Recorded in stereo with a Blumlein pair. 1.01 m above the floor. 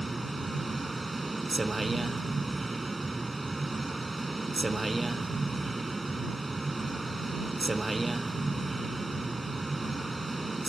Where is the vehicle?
10° right.